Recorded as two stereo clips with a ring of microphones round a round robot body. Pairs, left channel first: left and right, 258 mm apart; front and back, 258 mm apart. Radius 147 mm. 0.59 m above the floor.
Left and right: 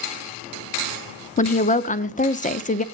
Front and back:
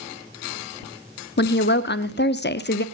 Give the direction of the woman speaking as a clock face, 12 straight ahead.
11 o'clock.